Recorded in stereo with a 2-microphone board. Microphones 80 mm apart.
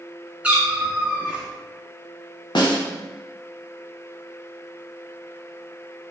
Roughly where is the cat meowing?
Centre.